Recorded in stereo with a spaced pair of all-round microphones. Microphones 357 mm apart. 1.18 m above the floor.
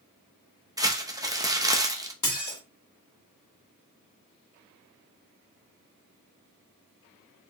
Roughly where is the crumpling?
Centre.